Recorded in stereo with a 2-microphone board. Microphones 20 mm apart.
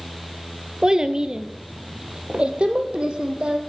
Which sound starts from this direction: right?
A child speaking, at 0.8 s.